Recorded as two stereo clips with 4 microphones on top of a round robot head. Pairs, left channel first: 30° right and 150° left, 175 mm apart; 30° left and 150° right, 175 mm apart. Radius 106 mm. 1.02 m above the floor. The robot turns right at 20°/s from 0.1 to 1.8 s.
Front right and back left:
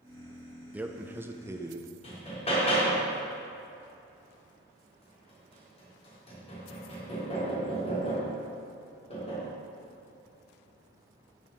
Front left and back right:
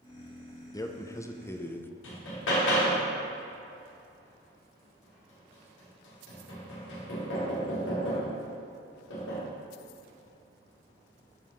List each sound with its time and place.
0.7 s a man speaking: 75° left, 0.8 m; by 1.9 s 95° left, 0.8 m
2.0 s hammering: 25° left, 2 m